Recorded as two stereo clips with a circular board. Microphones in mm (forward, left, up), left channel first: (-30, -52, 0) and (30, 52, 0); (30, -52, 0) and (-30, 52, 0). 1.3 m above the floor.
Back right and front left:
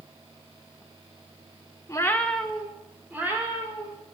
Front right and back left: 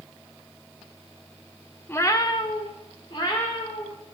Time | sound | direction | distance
1.9 | a cat meowing | 110° right | 0.8 m